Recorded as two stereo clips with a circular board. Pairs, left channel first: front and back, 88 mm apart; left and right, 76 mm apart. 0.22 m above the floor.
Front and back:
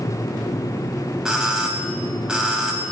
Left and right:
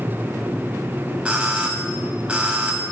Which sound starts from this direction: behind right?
A doorbell, at 1.2 s.